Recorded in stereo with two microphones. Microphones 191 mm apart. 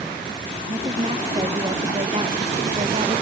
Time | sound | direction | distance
0.7 | a woman speaking | 30° right (ahead or behind) | ?